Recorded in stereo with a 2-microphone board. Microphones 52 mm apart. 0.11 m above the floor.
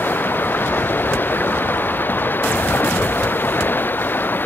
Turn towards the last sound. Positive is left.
turn(degrees=40)  # may be behind; listen again after turning